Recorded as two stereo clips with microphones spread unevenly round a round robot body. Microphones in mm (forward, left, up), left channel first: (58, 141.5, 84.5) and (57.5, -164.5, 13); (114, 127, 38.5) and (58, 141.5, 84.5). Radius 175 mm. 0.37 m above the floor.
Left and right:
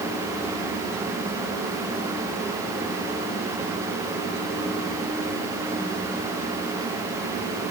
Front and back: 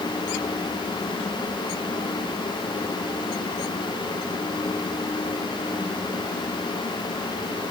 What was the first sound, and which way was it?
Only background noise.